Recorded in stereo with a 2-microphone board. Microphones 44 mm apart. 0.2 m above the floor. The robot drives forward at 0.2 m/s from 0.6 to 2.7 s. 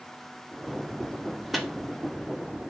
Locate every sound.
1.5 s a microwave: 5° right (ahead or behind), 0.8 m